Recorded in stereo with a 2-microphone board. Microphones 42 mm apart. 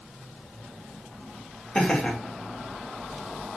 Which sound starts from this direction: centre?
Laughter, at 1.8 s.